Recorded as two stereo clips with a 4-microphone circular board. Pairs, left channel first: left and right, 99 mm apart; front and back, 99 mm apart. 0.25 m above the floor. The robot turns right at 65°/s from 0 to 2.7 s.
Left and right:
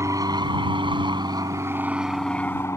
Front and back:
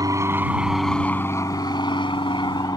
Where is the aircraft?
140° right; by 2.8 s 35° left.